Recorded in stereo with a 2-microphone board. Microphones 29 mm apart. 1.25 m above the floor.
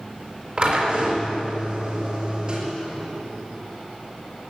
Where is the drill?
40° right (ahead or behind), 5 m.